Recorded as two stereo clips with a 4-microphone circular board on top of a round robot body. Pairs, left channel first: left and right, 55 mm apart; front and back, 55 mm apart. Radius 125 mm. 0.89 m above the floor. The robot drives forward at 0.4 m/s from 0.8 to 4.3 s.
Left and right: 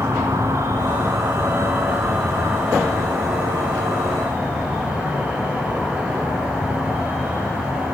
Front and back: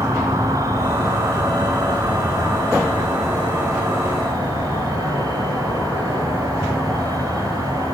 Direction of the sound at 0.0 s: 140° right.